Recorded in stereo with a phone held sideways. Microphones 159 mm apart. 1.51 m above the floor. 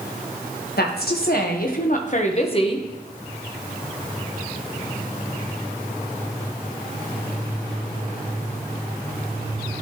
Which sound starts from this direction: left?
A woman speaking, at 0.8 s.